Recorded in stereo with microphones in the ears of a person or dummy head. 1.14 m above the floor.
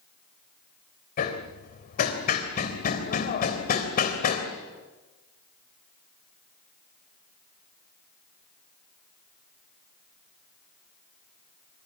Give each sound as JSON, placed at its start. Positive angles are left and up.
{"t": 1.2, "sound": "hammering", "side_deg": 45, "distance_m": 3.5}